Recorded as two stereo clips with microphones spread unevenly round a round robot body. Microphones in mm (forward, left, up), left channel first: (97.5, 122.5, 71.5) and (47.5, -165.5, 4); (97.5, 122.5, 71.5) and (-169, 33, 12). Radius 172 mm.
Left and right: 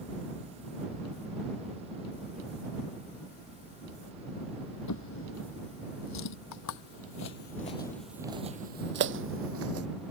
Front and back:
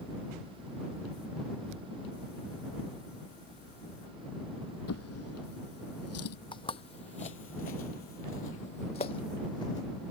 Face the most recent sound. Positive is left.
turn(degrees=-55)